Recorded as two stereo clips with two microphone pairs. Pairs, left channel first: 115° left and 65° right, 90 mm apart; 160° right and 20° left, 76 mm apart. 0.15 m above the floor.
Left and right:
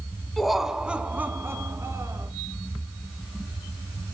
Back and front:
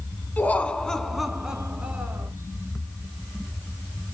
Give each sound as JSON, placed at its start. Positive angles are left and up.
{"t": 0.4, "sound": "laughter", "azimuth_deg": -160, "distance_m": 1.5}